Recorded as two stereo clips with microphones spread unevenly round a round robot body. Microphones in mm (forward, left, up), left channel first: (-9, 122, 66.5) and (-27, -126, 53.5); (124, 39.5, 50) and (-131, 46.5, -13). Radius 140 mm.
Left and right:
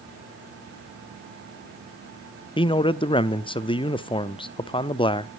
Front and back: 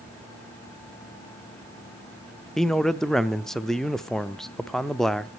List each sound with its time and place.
2.6 s a man speaking: 125° left, 0.7 m